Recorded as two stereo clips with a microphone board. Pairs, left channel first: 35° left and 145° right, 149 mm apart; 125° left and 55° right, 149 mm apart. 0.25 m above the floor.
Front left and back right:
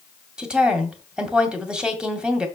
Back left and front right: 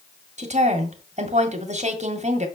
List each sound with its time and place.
0.4 s a woman speaking: 65° right, 1.9 m